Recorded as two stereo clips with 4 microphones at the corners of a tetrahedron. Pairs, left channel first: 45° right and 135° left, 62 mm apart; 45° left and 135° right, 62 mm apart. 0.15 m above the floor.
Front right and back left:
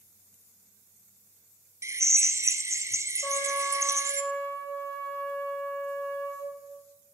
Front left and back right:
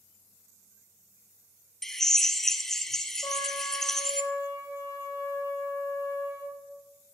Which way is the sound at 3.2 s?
20° left.